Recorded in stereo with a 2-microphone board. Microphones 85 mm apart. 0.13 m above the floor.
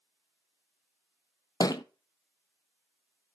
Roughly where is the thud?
Left.